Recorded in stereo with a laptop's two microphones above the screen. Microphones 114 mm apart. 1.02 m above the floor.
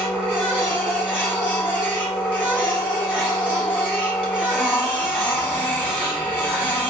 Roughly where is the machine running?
Centre.